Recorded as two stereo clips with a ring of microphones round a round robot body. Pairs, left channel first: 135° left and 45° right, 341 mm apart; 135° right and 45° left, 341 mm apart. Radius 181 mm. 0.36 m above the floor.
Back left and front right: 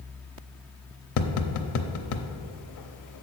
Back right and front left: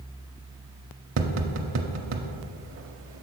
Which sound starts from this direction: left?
Tapping, at 1.2 s.